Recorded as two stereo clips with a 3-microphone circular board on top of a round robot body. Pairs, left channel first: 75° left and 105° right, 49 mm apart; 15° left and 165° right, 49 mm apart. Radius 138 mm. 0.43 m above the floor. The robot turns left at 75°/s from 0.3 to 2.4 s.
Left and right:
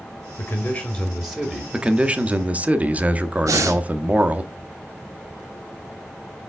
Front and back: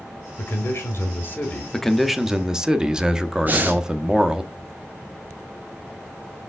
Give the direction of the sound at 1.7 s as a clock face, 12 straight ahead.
2 o'clock.